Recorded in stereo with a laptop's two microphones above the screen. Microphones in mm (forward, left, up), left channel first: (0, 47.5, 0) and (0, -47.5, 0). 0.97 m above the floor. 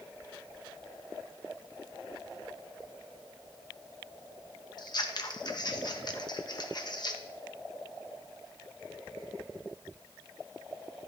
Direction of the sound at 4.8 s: 50° left (ahead or behind).